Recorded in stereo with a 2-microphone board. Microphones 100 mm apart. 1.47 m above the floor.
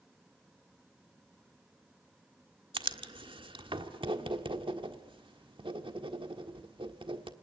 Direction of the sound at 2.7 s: 55° right (ahead or behind).